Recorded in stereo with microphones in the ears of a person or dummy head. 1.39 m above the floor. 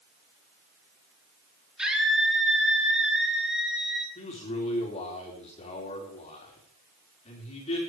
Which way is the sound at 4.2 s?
35° left (ahead or behind).